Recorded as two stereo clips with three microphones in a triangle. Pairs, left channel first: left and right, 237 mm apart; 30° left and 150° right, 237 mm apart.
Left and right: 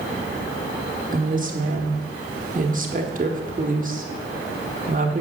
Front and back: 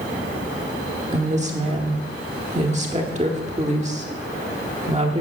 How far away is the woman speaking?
About 1.3 m.